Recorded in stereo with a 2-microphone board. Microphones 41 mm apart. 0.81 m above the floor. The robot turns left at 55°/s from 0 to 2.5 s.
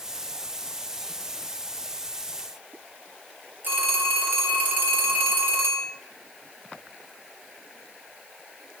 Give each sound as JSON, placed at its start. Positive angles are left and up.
{"t": 3.6, "sound": "a phone ringing", "side_deg": -55, "distance_m": 3.0}